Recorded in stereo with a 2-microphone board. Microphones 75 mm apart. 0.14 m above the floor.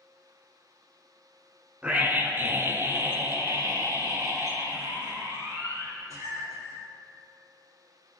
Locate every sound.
1.8 s a scream: 15° right (ahead or behind), 1.5 m; by 6.8 s 45° right (ahead or behind), 4.5 m